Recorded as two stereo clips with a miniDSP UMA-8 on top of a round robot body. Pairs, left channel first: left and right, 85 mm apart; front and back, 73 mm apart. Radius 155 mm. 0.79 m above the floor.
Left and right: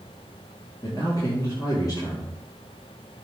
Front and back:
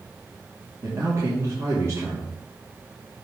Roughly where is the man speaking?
Behind left.